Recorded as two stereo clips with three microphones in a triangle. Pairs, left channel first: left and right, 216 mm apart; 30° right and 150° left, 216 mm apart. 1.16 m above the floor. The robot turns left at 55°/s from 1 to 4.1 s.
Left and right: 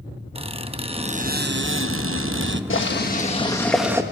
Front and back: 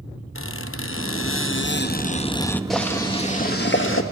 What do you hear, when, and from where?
0.3 s a squeak: 25° right, 0.7 m; by 2.6 s 115° right, 0.7 m
2.7 s boiling: 60° left, 1.5 m; by 4.0 s 10° right, 1.5 m